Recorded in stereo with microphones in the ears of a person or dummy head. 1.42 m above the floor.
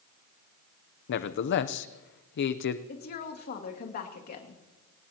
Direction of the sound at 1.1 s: 60° left (ahead or behind).